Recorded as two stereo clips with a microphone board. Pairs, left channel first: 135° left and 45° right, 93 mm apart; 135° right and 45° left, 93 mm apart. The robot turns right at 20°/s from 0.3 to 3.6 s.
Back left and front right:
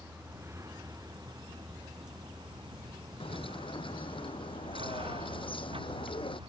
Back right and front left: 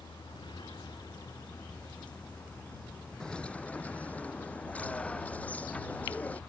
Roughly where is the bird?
Behind left.